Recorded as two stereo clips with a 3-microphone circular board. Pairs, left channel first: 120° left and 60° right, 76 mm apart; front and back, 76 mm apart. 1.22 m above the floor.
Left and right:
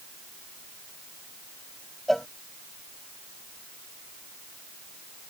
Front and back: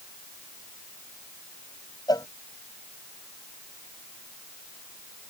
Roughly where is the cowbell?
Ahead left.